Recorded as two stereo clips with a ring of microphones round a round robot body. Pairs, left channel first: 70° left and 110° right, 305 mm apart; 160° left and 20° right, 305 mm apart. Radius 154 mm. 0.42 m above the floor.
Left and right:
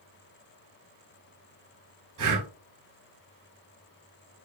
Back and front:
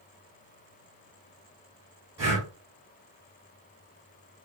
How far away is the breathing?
About 2.5 m.